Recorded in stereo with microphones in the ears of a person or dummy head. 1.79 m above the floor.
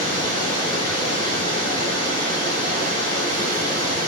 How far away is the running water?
About 3.5 m.